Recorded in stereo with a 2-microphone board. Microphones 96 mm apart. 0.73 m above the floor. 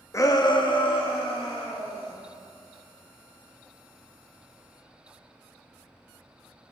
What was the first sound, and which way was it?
A shout, 30° left (ahead or behind).